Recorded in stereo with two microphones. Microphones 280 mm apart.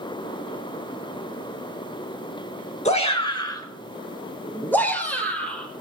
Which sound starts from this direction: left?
A shout, at 2.9 s.